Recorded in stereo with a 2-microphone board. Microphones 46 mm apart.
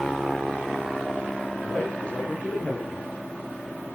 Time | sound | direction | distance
1.6 | a man speaking | 20° left (ahead or behind) | 7.5 m